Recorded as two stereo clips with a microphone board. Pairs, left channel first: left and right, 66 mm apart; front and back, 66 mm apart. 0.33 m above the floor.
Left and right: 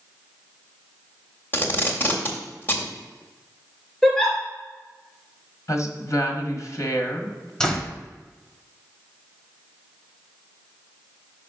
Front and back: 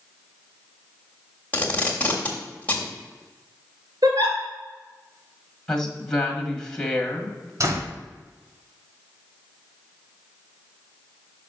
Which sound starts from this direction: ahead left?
Tape being pulled, at 1.5 s.